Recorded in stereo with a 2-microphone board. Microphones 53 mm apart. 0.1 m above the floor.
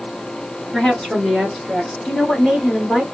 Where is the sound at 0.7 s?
10° left (ahead or behind), 1.4 m; by 1.9 s centre (ahead or behind), 1.6 m.